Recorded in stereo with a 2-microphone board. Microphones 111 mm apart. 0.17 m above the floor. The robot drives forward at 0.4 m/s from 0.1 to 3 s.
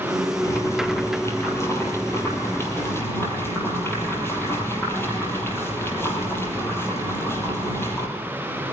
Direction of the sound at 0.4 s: 30° left (ahead or behind).